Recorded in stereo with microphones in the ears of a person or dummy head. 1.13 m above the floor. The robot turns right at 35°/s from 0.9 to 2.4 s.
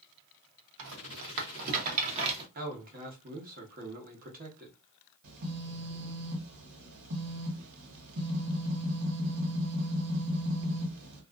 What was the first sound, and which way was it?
A rattle, 75° right (ahead or behind).